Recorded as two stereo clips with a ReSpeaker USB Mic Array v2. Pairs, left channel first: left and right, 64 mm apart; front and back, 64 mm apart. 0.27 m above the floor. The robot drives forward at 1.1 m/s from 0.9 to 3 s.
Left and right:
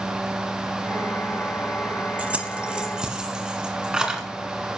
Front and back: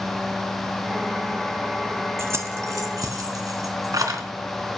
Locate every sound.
2.2 s keys jangling: 150° right, 0.9 m; by 4.2 s 165° right, 1.6 m